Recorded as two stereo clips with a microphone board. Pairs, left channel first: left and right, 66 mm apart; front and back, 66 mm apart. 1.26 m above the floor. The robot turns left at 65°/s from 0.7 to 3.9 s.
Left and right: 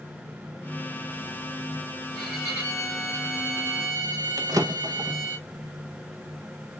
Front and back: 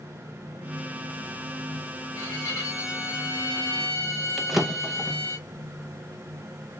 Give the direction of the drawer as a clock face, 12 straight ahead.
3 o'clock.